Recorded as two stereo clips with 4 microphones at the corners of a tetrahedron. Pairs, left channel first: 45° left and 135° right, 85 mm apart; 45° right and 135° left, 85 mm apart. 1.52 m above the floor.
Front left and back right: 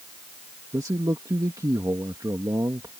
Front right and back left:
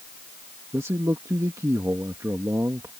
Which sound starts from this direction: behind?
A man speaking, at 0.7 s.